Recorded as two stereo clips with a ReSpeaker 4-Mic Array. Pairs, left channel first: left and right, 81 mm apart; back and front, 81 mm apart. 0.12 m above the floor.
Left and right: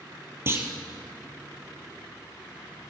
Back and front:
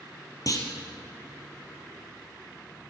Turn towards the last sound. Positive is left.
turn(degrees=-145)